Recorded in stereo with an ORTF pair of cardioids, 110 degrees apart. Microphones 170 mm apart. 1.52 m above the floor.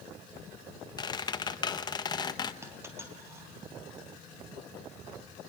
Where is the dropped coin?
15° right, 4 m.